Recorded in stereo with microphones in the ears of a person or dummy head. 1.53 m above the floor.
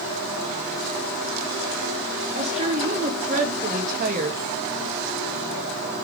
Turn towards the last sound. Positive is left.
turn(degrees=-50)  # may be behind; listen again after turning